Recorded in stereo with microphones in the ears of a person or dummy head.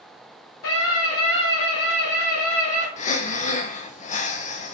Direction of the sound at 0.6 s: 85° left.